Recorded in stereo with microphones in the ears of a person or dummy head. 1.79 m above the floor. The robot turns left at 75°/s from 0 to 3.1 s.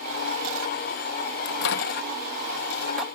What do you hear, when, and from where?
1.4 s a microwave: 50° left (ahead or behind); by 3.0 s 5° right (ahead or behind)